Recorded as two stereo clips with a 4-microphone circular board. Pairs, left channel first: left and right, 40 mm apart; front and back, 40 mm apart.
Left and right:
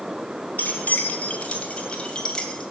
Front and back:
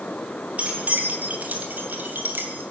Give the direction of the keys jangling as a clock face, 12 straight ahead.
8 o'clock.